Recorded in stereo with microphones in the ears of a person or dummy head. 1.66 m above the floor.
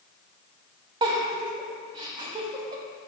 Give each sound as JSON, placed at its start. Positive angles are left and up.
{"t": 1.0, "sound": "a giggle", "side_deg": -30, "distance_m": 0.7}